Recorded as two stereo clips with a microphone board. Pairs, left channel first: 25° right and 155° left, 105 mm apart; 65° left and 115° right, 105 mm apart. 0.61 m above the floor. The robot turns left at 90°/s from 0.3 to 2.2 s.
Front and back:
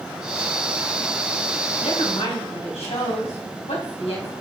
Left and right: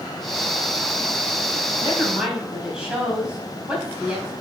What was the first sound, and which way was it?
A woman speaking, 5° left.